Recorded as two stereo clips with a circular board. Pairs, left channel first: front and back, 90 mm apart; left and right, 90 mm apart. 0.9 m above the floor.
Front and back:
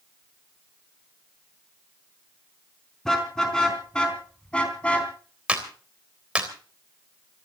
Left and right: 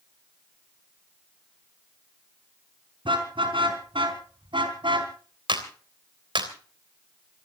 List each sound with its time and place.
3.0 s a car horn: 85° right, 4.5 m; by 5.1 s 75° right, 3.5 m
5.5 s a clap: 105° right, 3.5 m